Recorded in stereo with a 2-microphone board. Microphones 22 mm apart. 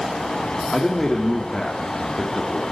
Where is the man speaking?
15° left (ahead or behind), 3 m.